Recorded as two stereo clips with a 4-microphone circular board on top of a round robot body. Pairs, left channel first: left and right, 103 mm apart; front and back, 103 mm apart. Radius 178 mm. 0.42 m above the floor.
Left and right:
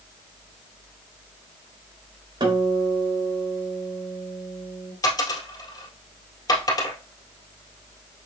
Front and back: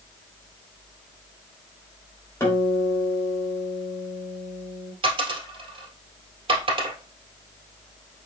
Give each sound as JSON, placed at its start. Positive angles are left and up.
{"t": 2.4, "sound": "a guitar", "azimuth_deg": -65, "distance_m": 3.0}
{"t": 5.0, "sound": "a dropped coin", "azimuth_deg": 145, "distance_m": 1.9}